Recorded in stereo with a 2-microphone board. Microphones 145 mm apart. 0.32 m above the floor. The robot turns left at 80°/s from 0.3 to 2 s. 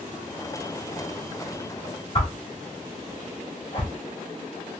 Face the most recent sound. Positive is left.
turn(degrees=40)  # may be behind; listen again after turning